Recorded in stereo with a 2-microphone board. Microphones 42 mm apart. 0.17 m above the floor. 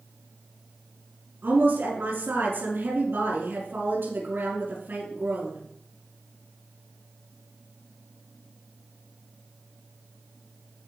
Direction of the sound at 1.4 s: 70° right (ahead or behind).